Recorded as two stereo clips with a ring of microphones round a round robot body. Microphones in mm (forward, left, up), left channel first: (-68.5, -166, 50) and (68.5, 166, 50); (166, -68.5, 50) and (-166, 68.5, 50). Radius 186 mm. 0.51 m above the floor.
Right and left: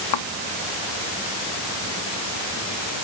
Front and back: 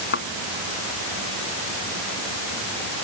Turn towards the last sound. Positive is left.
turn(degrees=-85)